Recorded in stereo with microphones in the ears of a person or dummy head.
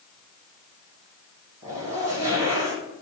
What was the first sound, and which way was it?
A zipper, 30° right (ahead or behind).